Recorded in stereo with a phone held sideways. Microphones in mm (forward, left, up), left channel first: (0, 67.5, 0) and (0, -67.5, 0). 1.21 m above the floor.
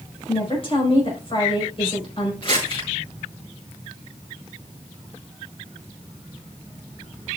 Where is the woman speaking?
45° left (ahead or behind), 4.5 m.